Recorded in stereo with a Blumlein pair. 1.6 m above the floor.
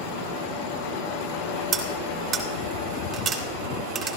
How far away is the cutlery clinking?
About 2.5 m.